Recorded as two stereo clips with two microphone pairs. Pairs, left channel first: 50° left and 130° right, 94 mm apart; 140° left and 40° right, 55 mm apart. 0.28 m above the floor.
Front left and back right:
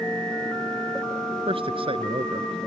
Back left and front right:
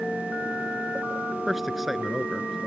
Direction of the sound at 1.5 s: 125° right.